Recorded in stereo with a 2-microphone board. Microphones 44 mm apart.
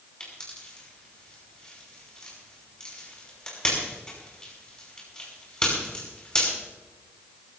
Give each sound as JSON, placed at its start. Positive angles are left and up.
{"t": 0.2, "sound": "a pop", "side_deg": 20, "distance_m": 5.5}